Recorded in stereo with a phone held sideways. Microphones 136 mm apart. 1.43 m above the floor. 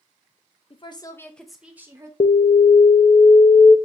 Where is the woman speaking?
45° left (ahead or behind), 0.7 m; by 2.1 s 25° right (ahead or behind), 1.0 m.